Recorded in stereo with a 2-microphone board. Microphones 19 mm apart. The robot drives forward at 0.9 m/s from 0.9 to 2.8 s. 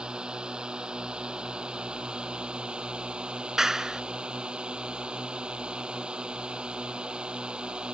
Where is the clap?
30° right (ahead or behind).